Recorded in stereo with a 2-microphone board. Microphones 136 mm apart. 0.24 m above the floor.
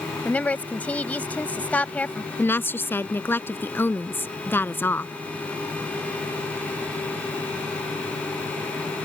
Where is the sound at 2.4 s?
15° left (ahead or behind).